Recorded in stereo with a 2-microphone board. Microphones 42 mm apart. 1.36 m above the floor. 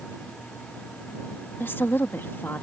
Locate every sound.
1.6 s a woman speaking: 60° left (ahead or behind)